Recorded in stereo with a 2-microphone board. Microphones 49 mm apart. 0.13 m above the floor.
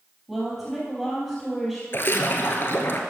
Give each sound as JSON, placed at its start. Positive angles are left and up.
{"t": 0.3, "sound": "a woman speaking", "side_deg": -5, "distance_m": 3.5}
{"t": 1.9, "sound": "a splash", "side_deg": 50, "distance_m": 1.3}